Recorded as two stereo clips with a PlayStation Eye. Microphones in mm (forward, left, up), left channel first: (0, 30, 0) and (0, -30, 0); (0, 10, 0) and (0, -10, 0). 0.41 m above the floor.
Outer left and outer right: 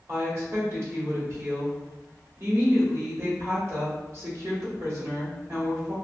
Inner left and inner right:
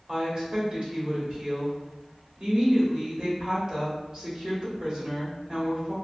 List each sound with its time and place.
0.1 s a woman speaking: 50° right (ahead or behind), 1.3 m